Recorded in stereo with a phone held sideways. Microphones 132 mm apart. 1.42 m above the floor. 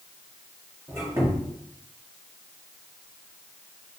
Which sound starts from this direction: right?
A squeak, at 0.9 s.